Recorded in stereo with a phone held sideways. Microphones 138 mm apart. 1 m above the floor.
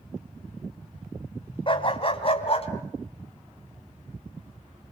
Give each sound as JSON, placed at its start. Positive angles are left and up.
{"t": 1.7, "sound": "a dog barking", "side_deg": 40, "distance_m": 2.0}